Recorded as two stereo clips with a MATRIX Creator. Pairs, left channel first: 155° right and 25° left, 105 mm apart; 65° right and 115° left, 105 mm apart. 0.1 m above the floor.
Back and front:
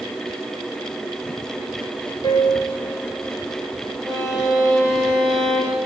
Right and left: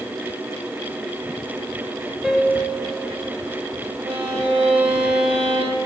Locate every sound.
2.2 s a piano: 165° right, 1.6 m
4.0 s a violin: 110° left, 4.5 m